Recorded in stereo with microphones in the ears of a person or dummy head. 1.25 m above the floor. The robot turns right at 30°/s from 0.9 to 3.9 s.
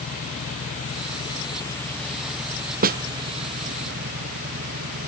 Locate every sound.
0.0 s an engine running: 140° left; by 5.1 s 130° right
2.8 s a snare drum: 45° right (ahead or behind); by 3.0 s 50° right (ahead or behind)